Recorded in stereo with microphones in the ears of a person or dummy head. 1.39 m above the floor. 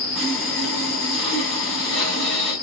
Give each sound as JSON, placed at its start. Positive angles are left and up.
{"t": 0.1, "sound": "sawing", "side_deg": 5, "distance_m": 8.5}